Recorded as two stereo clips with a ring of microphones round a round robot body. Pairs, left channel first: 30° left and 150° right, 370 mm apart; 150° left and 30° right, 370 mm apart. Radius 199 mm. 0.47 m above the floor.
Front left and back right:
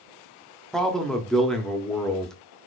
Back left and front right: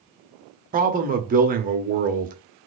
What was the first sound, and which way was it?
A man speaking, 55° right.